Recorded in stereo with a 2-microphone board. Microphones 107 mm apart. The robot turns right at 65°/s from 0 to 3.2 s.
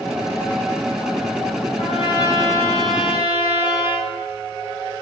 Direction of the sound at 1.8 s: 105° left.